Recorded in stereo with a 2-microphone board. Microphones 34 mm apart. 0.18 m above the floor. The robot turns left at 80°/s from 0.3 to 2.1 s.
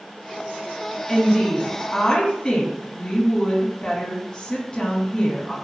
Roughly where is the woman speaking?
Behind left.